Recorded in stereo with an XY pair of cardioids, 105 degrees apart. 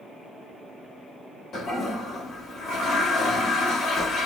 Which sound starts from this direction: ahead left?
A toilet flushing, at 1.5 s.